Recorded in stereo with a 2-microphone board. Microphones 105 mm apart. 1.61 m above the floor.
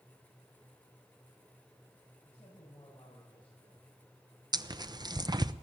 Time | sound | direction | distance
2.2 | a man speaking | 45° left (ahead or behind) | 8.5 m
4.5 | tearing paper | 40° right (ahead or behind) | 0.8 m